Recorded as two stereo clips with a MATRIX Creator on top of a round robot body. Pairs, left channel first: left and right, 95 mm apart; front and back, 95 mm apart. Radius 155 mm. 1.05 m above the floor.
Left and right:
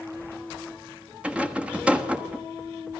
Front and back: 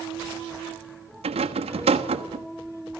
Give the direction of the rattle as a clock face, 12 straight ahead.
6 o'clock.